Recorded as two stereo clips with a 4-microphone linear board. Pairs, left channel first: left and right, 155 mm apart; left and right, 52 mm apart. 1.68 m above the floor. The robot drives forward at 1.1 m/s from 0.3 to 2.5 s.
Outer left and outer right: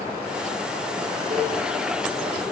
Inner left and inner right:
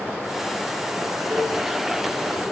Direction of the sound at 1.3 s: 50° right (ahead or behind).